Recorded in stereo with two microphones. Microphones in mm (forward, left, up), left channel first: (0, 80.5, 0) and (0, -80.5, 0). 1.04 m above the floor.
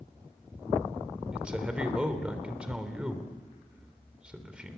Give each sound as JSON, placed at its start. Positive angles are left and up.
{"t": 1.3, "sound": "a man speaking", "side_deg": -5, "distance_m": 3.5}